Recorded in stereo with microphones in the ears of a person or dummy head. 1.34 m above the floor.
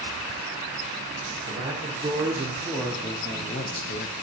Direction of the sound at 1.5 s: 15° right (ahead or behind).